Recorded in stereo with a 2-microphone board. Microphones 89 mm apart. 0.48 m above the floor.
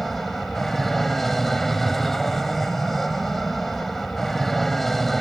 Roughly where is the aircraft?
Centre.